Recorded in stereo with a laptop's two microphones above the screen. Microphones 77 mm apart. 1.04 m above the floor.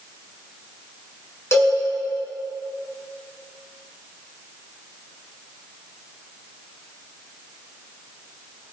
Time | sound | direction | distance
1.5 | a cowbell | 35° left (ahead or behind) | 5.5 m